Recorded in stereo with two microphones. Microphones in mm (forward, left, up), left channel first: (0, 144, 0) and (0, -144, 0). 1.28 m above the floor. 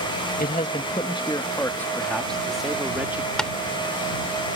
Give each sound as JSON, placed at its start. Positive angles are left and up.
{"t": 0.4, "sound": "a man speaking", "side_deg": 30}
{"t": 3.4, "sound": "tapping", "side_deg": 5}